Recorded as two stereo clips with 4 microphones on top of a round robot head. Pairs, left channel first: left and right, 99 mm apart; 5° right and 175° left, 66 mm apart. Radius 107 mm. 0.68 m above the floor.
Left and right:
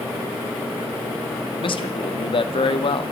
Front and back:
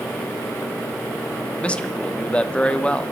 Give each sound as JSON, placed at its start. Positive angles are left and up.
{"t": 1.6, "sound": "a man speaking", "azimuth_deg": 70, "distance_m": 1.2}